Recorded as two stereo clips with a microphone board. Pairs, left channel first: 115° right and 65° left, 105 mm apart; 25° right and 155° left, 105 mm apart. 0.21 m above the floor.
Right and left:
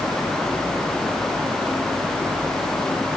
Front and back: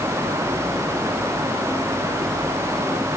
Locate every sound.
Only background noise.